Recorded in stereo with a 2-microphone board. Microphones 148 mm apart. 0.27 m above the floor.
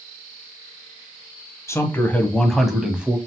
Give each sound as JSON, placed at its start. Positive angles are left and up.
{"t": 1.7, "sound": "a man speaking", "side_deg": 20, "distance_m": 1.5}